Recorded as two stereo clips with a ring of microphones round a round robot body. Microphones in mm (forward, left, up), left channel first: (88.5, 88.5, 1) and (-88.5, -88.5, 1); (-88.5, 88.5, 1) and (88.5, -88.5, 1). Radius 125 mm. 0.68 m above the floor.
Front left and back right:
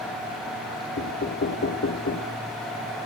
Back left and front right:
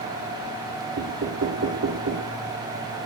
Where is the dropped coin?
No dropped coin in this recording.